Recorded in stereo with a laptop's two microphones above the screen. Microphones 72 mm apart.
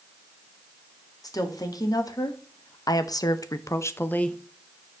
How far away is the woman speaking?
About 1.7 m.